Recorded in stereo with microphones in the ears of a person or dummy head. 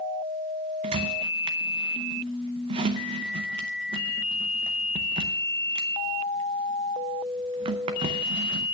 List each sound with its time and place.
0.8 s a squeak: 30° right (ahead or behind), 0.6 m